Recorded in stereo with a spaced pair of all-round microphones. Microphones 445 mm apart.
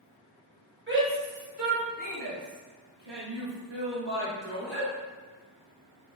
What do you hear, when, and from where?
0.9 s a shout: 25° right (ahead or behind), 1.8 m; by 4.9 s 55° right (ahead or behind), 2.0 m